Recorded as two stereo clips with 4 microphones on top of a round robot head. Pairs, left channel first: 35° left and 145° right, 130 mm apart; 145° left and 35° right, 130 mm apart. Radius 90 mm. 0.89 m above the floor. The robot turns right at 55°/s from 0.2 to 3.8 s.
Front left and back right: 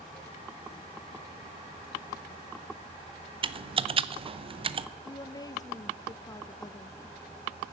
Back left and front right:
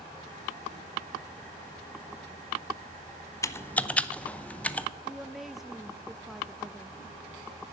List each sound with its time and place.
3.4 s typing on a keyboard: 160° right, 0.7 m; by 4.9 s 140° right, 0.7 m
5.0 s a woman speaking: 50° left, 0.6 m